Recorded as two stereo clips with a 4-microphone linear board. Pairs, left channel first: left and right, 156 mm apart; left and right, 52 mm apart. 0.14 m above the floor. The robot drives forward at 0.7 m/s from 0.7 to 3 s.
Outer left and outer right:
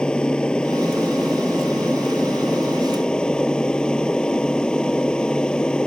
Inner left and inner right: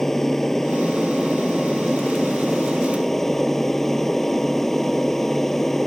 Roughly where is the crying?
I don't hear crying.